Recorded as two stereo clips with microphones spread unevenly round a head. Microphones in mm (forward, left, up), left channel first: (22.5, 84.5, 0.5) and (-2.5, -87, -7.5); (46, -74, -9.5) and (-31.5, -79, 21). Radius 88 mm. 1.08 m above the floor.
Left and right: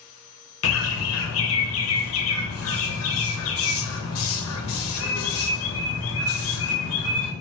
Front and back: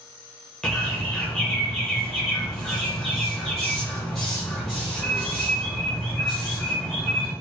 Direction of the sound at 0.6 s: 85° left.